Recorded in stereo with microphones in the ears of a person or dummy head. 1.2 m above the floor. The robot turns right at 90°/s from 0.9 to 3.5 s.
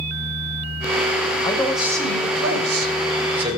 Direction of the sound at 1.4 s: 150° left.